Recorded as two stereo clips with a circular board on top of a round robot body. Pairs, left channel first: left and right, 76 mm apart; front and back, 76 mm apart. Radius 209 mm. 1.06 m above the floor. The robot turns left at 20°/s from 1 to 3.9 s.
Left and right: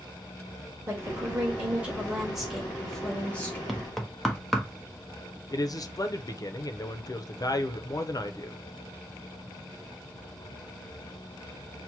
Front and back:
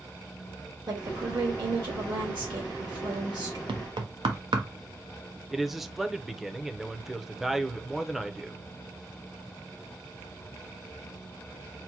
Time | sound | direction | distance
0.9 | a woman speaking | 150° right | 1.8 m
3.7 | knocking | straight behind | 0.9 m
5.5 | a man speaking | 95° left | 0.8 m